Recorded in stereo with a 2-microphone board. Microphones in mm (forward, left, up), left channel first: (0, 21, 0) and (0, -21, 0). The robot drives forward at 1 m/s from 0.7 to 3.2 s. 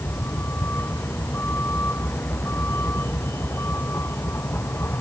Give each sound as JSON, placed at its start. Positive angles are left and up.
{"t": 0.0, "sound": "a vehicle", "side_deg": 60}